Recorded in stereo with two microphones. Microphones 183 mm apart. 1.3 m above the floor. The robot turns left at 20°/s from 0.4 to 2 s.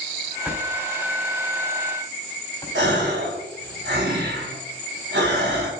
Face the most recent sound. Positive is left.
turn(degrees=-80)